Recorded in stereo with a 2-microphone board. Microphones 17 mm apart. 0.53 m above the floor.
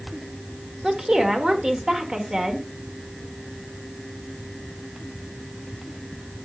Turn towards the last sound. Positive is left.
turn(degrees=-45)  # may be behind; listen again after turning